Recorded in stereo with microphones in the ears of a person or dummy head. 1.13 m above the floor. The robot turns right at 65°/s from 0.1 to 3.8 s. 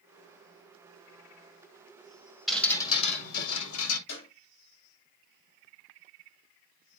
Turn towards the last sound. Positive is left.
turn(degrees=75)  # may be behind; listen again after turning